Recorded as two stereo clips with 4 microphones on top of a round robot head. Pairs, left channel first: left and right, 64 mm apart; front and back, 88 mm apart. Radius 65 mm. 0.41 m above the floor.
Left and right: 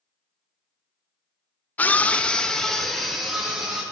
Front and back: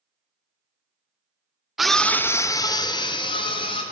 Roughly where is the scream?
Left.